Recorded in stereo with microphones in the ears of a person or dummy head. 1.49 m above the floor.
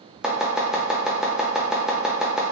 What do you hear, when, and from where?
0.2 s chopping: centre (ahead or behind), 0.5 m